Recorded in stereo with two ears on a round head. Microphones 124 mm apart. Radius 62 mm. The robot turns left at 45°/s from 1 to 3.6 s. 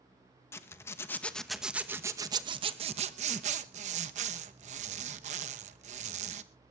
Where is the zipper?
25° left, 0.9 m; by 6.4 s 95° right, 0.9 m.